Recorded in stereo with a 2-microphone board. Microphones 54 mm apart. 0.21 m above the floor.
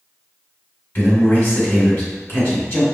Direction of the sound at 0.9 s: 40° left (ahead or behind).